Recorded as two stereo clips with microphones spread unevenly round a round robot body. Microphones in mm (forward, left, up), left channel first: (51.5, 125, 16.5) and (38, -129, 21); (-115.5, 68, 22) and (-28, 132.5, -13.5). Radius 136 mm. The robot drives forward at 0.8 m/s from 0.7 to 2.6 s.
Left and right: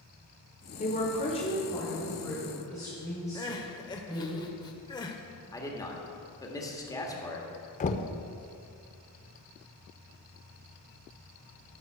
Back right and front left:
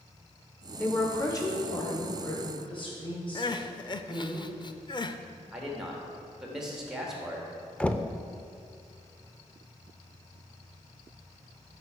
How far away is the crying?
About 0.6 m.